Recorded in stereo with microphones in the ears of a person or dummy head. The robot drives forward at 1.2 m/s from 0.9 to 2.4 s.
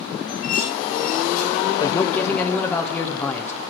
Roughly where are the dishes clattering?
Left.